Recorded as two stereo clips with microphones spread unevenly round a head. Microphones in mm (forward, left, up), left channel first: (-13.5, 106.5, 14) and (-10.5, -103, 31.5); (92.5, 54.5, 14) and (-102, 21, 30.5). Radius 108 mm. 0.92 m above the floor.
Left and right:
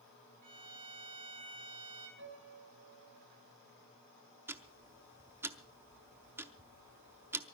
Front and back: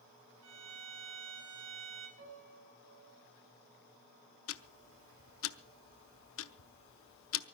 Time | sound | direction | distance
0.4 | a violin | 135° right | 7 m
2.2 | a piano | 120° right | 6 m
4.5 | ticking | 15° right | 0.6 m